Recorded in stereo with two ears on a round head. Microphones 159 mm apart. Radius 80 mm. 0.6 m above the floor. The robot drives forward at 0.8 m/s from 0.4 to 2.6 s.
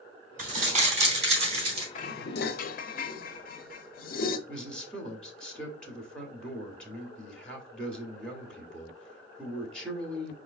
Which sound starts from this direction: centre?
A man speaking, at 4.5 s.